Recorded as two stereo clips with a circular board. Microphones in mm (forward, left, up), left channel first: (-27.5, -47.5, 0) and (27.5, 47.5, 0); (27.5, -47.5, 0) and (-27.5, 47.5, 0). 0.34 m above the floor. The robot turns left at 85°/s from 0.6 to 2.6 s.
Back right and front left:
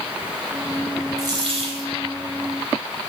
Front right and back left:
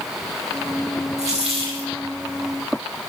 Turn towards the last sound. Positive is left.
turn(degrees=0)